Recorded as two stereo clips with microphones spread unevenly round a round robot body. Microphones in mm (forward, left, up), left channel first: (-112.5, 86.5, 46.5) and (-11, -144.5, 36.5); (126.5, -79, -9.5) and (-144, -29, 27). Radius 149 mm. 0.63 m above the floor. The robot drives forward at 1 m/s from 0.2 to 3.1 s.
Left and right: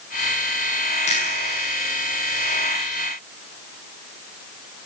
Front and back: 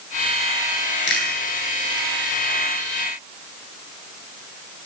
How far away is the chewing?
About 8.5 m.